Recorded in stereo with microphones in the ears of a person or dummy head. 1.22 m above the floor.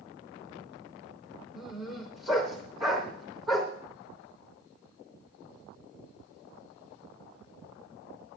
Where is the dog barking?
Centre (ahead or behind), 3.5 m.